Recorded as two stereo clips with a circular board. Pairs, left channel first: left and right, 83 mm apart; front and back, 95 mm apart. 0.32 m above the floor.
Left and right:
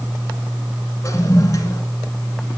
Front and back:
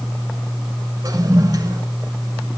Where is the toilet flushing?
135° left, 1.2 m.